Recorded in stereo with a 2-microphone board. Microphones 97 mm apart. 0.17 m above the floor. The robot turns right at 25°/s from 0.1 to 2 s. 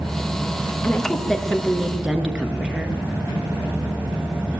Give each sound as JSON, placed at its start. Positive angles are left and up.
{"t": 0.8, "sound": "a woman speaking", "side_deg": 15, "distance_m": 2.5}